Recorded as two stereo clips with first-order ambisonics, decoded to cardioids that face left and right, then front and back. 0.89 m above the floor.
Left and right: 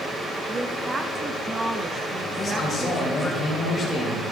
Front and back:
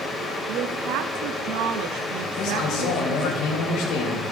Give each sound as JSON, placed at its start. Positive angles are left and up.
{"t": 0.5, "sound": "a woman speaking", "azimuth_deg": -165, "distance_m": 0.7}
{"t": 2.4, "sound": "a man speaking", "azimuth_deg": 0, "distance_m": 3.0}